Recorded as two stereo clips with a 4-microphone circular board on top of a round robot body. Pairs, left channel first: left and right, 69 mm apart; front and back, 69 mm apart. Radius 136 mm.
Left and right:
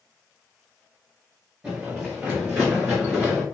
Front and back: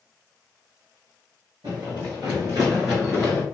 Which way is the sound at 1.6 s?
165° right.